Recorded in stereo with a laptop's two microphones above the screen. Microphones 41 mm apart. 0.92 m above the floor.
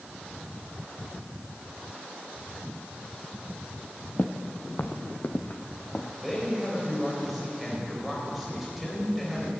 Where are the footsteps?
50° left (ahead or behind), 1.3 m; by 6.1 s 40° left (ahead or behind), 2 m.